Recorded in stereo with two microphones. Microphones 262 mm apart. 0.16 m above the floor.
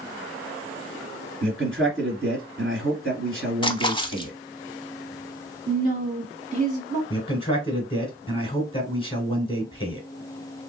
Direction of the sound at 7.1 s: 20° left (ahead or behind).